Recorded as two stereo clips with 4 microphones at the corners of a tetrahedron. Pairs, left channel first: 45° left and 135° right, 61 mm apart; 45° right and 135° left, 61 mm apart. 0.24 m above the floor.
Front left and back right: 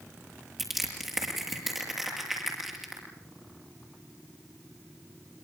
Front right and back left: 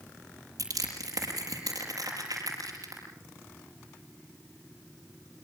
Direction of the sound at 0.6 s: 140° left.